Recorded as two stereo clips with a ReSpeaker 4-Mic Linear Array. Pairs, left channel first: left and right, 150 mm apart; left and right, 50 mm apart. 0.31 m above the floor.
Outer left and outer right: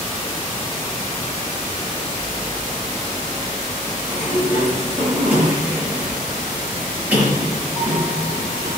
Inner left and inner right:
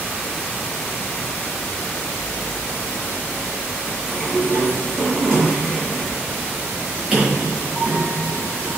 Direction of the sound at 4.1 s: 10° right (ahead or behind).